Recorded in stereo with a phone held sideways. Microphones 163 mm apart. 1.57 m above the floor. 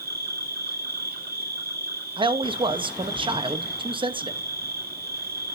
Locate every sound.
0.0 s an insect: 75° right (ahead or behind), 3.5 m
2.2 s a man speaking: 30° right (ahead or behind), 0.8 m